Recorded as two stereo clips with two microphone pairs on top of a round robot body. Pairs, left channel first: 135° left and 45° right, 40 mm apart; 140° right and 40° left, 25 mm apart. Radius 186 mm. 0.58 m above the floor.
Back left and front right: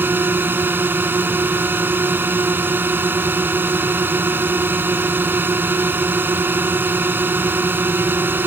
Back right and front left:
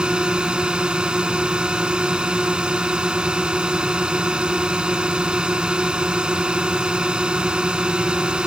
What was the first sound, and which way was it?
A drone, 15° right.